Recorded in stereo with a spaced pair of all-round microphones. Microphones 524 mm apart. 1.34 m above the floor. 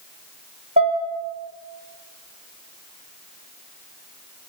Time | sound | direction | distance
0.8 | dishes clattering | 15° right (ahead or behind) | 1.3 m